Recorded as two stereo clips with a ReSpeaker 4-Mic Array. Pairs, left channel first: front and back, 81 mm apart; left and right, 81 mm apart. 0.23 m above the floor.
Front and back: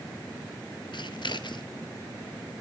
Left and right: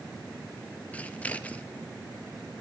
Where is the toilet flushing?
I don't hear a toilet flushing.